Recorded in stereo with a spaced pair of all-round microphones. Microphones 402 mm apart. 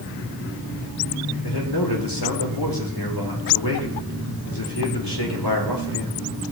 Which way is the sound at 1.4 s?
85° left.